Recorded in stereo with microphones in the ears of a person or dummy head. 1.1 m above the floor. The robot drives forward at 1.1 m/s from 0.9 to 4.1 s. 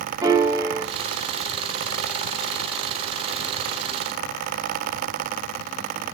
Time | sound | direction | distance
0.2 | a piano | 15° right (ahead or behind) | 1.4 m